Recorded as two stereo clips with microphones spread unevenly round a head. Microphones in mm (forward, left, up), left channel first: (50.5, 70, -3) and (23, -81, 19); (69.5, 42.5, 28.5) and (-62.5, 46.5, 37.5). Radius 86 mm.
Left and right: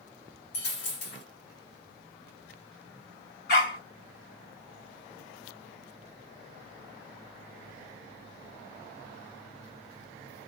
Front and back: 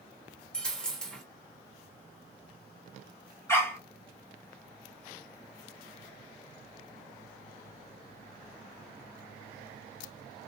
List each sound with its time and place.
0.5 s a dropped coin: 85° left, 1.6 m
3.5 s a dog barking: 70° left, 1.7 m